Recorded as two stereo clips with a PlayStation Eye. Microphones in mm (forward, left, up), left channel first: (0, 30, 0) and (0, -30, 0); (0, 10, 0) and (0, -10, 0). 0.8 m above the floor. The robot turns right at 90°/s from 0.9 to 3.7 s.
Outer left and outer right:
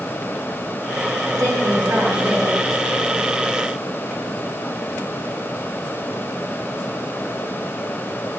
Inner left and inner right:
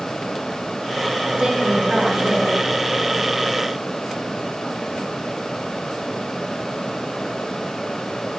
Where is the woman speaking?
105° right, 6.5 m; by 2.5 s straight ahead, 6.5 m.